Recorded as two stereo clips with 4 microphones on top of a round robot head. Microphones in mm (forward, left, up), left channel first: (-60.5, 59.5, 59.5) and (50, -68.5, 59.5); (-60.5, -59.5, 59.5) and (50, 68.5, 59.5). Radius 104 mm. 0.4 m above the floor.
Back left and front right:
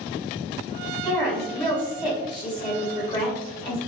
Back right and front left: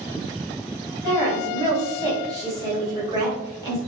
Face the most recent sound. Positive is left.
turn(degrees=95)